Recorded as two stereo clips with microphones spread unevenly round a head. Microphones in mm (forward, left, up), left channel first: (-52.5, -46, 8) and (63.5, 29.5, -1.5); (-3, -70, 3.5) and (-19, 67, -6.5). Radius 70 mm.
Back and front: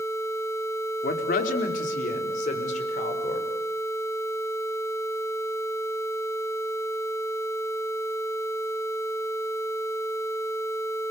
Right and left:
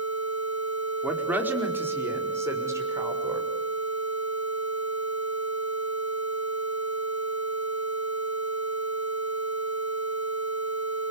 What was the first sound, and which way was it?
A woman speaking, 175° left.